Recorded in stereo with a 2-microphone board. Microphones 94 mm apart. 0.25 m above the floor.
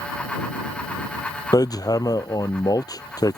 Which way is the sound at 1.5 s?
45° left (ahead or behind).